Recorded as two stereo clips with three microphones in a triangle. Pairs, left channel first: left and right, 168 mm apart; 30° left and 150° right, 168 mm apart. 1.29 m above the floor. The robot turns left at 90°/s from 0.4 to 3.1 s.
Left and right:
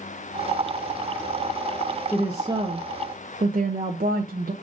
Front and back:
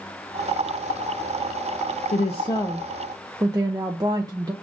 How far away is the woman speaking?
About 0.5 m.